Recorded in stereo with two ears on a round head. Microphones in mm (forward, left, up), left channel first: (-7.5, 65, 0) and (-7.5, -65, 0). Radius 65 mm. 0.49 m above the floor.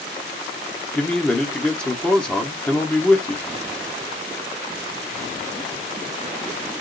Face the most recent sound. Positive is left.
turn(degrees=5)  # may be behind; listen again after turning